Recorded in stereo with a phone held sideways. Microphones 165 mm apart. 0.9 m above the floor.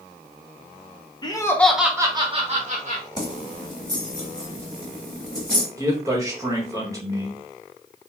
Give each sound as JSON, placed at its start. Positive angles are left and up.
{"t": 1.2, "sound": "laughter", "side_deg": 25, "distance_m": 0.6}
{"t": 3.2, "sound": "keys jangling", "side_deg": 25, "distance_m": 1.1}
{"t": 5.8, "sound": "a man speaking", "side_deg": -20, "distance_m": 1.1}